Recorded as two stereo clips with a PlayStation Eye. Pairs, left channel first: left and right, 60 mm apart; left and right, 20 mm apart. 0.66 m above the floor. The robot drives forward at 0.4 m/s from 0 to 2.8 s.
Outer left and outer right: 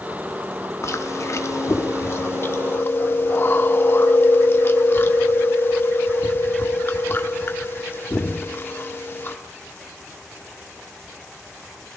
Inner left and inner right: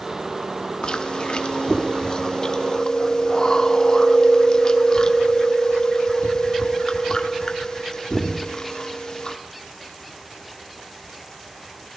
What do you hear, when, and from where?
0.8 s chewing: 50° left (ahead or behind), 0.8 m; by 9.4 s 35° left (ahead or behind), 1.1 m